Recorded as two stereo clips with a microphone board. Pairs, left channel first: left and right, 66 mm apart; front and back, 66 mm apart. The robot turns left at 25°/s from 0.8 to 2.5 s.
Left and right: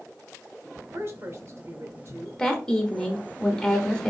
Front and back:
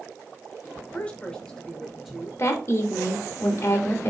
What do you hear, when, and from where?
0.9 s a woman speaking: 60° right, 1.2 m; by 2.3 s 95° right, 1.2 m
2.4 s a woman speaking: 20° left, 1.1 m; by 4.1 s 15° left, 1.1 m